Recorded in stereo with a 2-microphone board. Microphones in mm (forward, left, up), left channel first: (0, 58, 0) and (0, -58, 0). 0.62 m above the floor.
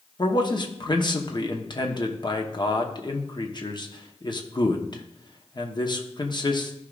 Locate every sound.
0.2 s a man speaking: 40° left (ahead or behind), 0.9 m